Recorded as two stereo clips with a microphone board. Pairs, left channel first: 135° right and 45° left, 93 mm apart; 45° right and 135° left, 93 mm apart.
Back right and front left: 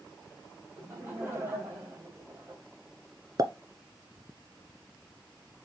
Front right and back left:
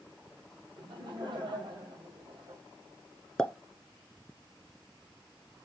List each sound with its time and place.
0.8 s laughter: 105° left, 3.5 m
3.4 s a pop: 30° left, 0.7 m